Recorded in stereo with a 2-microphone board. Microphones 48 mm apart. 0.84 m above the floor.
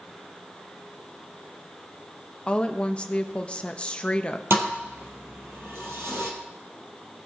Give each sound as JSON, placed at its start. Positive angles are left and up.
{"t": 2.5, "sound": "a woman speaking", "side_deg": 20, "distance_m": 0.8}
{"t": 4.5, "sound": "a thud", "side_deg": -60, "distance_m": 2.5}